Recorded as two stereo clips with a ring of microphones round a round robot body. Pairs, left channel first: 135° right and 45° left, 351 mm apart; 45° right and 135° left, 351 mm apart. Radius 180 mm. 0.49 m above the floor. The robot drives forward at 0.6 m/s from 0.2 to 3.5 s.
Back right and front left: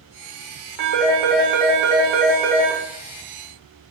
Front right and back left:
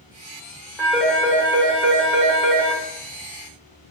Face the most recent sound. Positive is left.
turn(degrees=145)